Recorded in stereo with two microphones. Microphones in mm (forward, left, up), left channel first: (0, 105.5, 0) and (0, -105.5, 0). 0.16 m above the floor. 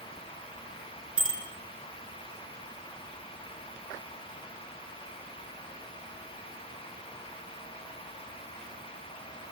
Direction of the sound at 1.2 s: 75° left (ahead or behind).